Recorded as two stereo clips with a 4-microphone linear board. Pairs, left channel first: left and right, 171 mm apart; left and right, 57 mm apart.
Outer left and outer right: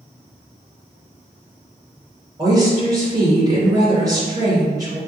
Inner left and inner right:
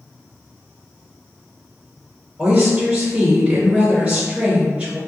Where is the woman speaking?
25° right (ahead or behind), 2.0 m.